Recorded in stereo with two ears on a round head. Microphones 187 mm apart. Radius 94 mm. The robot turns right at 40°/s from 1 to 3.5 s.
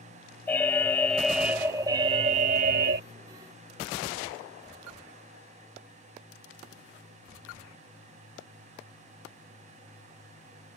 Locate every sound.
0.5 s an alarm: 170° left; by 3.0 s 110° right